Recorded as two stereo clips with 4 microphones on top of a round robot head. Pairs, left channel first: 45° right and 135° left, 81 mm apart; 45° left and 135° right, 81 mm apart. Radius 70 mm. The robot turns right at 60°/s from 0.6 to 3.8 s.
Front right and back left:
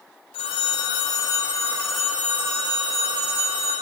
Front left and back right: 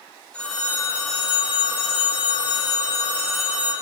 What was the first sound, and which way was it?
A phone ringing, 35° right.